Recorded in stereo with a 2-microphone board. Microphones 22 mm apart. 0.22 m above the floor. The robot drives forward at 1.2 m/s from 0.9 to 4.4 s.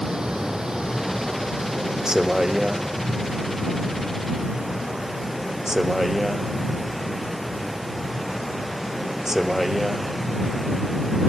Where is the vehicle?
30° right (ahead or behind); by 11.3 s 20° right (ahead or behind).